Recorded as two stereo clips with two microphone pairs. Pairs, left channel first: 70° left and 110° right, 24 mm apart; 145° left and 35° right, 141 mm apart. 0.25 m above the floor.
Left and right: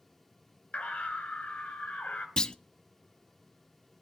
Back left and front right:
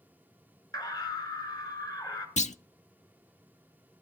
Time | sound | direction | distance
0.7 | a scream | 85° left | 4 m
2.4 | a clunk | 120° left | 0.5 m